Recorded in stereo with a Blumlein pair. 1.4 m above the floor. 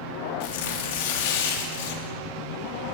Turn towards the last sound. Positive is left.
turn(degrees=50)